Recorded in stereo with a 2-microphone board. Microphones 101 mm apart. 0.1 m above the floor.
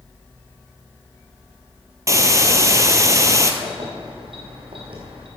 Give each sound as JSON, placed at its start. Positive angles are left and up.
{"t": 2.1, "sound": "a hiss", "side_deg": -30, "distance_m": 0.9}
{"t": 3.6, "sound": "keys jangling", "side_deg": -65, "distance_m": 3.0}